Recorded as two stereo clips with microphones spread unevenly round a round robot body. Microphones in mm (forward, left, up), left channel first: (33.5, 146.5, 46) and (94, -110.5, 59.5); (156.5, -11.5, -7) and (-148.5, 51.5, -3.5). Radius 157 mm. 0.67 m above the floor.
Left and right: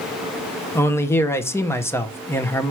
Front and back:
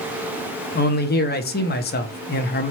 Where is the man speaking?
30° left, 0.9 m.